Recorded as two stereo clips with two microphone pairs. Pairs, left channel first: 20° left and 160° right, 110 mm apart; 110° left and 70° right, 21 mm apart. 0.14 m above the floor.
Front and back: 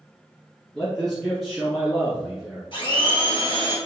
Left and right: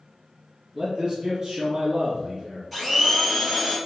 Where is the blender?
Straight ahead, 1.7 m.